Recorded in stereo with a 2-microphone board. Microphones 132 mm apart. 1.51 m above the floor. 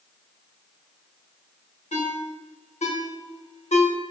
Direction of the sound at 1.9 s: 60° left (ahead or behind).